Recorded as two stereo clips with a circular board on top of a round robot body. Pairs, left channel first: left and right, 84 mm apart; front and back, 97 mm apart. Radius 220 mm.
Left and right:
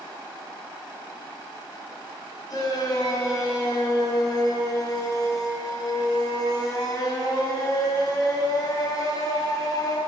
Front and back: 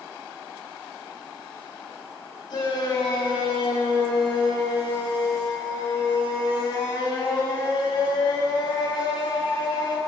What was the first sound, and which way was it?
A shout, 45° left.